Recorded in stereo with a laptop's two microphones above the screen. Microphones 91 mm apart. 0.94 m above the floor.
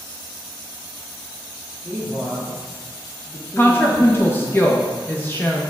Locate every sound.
1.8 s a man speaking: 10° right (ahead or behind), 1.8 m; by 4.6 s 35° left (ahead or behind), 1.1 m
3.6 s a woman speaking: 25° left (ahead or behind), 0.5 m